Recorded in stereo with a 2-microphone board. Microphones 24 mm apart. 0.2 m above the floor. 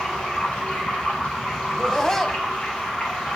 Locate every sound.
0.0 s running water: 65° left (ahead or behind), 5.5 m
1.7 s laughter: 20° left (ahead or behind), 1.0 m